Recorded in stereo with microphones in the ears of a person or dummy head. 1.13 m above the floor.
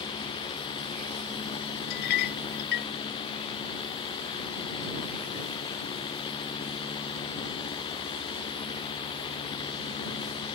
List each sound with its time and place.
1.9 s a clink: 60° left (ahead or behind)